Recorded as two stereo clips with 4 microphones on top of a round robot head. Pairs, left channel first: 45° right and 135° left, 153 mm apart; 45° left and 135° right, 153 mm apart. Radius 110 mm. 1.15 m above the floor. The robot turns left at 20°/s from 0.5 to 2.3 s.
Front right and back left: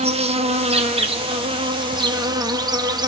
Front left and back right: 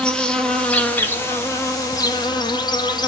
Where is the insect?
125° left, 1.2 m; by 3.1 s 90° left, 1.2 m.